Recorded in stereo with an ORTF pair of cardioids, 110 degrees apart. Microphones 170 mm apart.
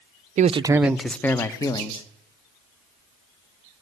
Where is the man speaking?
45° right, 0.7 m; by 2.0 s 25° left, 1.9 m.